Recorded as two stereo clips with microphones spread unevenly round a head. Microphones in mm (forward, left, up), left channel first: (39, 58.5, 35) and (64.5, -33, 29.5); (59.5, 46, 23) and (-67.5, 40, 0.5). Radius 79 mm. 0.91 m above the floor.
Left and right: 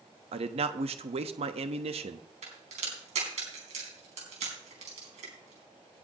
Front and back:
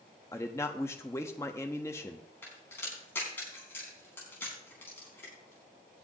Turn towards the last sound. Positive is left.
turn(degrees=-75)